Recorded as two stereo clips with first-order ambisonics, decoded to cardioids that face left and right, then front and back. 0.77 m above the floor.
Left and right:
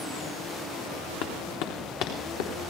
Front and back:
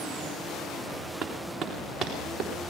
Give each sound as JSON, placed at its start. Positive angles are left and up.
{"t": 1.2, "sound": "running footsteps", "azimuth_deg": 100, "distance_m": 3.0}